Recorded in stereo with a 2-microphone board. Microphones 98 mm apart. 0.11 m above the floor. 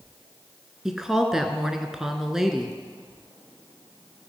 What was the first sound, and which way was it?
A woman speaking, 5° right (ahead or behind).